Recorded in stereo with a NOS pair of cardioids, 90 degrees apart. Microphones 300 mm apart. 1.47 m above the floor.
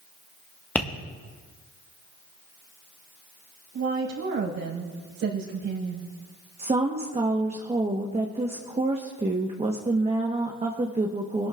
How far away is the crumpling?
No crumpling in this recording.